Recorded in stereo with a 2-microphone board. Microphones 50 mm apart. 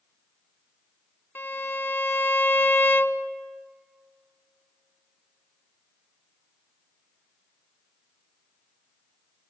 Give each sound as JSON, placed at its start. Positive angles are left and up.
{"t": 1.4, "sound": "a violin", "side_deg": 50, "distance_m": 0.8}